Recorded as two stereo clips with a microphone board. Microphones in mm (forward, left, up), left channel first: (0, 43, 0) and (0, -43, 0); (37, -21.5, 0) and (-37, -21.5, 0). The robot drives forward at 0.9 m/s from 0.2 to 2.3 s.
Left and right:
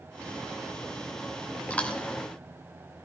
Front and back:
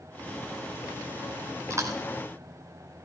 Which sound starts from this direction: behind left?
Chewing, at 1.7 s.